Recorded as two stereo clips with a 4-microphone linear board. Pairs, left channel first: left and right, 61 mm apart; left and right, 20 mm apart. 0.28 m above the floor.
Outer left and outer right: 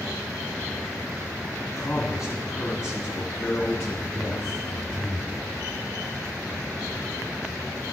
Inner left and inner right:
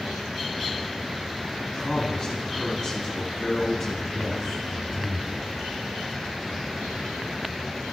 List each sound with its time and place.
1.6 s a man speaking: 60° left (ahead or behind), 2.5 m; by 5.5 s 10° left (ahead or behind), 2.5 m